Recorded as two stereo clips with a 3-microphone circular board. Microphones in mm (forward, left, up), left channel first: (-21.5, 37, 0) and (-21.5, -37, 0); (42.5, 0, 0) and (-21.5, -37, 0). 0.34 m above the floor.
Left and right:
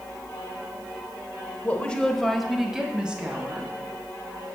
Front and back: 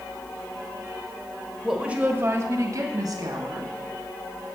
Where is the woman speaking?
125° left, 0.9 m; by 3.7 s 160° right, 2.5 m.